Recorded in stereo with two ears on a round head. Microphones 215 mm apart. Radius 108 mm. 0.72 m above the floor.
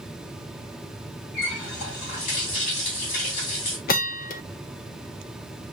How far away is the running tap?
About 5 m.